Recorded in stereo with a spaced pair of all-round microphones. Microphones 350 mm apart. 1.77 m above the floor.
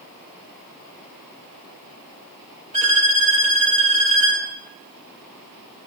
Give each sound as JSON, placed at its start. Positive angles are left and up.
{"t": 2.7, "sound": "a violin", "side_deg": -20, "distance_m": 2.5}